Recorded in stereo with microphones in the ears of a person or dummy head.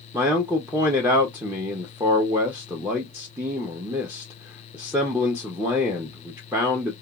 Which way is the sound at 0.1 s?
10° right (ahead or behind).